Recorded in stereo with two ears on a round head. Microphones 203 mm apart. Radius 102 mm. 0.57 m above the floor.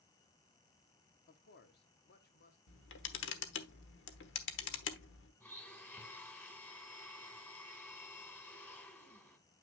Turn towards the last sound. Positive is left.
turn(degrees=10)  # may be behind; listen again after turning